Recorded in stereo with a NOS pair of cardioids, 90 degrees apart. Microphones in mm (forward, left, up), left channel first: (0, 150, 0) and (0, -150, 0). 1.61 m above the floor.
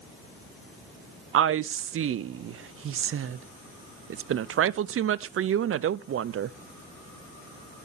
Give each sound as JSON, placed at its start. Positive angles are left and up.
{"t": 1.3, "sound": "a woman speaking", "azimuth_deg": -45, "distance_m": 0.7}